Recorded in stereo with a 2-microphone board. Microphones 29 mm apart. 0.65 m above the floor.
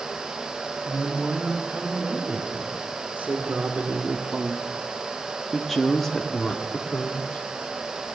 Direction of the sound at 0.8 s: 60° right (ahead or behind).